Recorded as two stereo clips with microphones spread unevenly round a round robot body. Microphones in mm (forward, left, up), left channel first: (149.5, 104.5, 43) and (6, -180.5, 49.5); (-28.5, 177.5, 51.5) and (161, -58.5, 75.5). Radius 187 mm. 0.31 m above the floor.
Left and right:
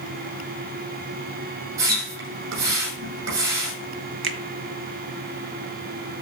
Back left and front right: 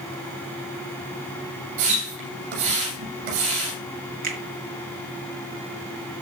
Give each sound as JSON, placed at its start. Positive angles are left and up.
{"t": 1.8, "sound": "a splash", "azimuth_deg": -75, "distance_m": 8.5}
{"t": 4.2, "sound": "a finger snap", "azimuth_deg": -120, "distance_m": 2.0}